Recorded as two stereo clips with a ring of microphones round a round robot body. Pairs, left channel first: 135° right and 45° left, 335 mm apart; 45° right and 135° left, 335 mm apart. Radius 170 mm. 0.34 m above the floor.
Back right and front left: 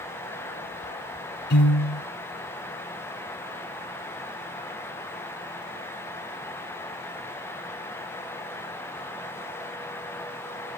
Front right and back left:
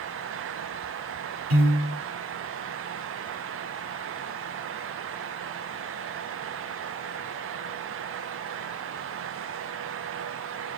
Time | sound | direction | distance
1.5 | a piano | 165° left | 6 m